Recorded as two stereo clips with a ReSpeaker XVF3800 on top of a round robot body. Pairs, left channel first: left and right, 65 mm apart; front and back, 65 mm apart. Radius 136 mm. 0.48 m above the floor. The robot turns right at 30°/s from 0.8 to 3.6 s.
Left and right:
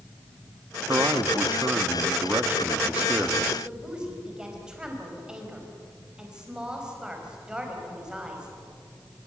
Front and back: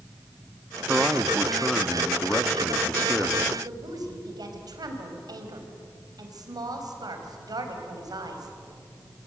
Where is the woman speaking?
170° right, 4.5 m.